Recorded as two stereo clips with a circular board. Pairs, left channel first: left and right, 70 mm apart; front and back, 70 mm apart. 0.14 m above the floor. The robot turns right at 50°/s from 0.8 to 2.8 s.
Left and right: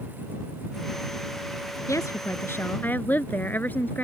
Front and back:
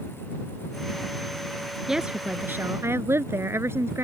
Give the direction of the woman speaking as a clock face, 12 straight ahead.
9 o'clock.